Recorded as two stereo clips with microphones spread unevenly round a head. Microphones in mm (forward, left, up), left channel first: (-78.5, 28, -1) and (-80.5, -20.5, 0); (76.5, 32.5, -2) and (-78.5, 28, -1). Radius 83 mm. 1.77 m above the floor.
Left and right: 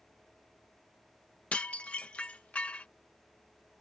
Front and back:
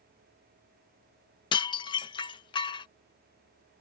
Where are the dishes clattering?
35° left.